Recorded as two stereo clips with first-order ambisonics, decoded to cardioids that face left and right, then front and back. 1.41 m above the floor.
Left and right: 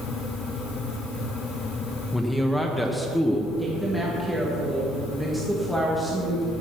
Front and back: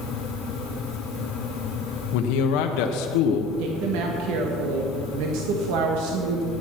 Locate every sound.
2.1 s a man speaking: 5° left, 0.8 m
3.6 s a woman speaking: straight behind, 1.5 m